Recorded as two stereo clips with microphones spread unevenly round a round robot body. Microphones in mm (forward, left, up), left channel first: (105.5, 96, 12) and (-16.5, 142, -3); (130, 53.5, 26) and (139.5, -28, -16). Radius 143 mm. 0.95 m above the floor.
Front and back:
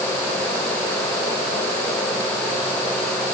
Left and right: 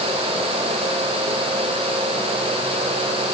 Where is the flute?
I don't hear a flute.